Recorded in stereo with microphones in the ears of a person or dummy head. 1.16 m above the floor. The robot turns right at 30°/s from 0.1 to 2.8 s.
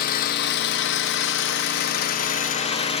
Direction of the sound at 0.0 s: 60° left.